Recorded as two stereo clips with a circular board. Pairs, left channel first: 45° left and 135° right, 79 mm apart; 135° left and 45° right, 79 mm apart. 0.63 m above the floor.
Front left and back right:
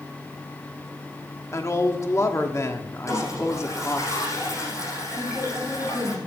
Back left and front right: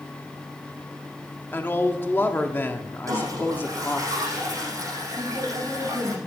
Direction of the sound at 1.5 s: 80° left.